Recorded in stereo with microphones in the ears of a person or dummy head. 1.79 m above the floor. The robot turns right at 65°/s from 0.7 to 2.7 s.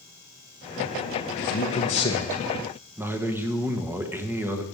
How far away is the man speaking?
About 1.4 m.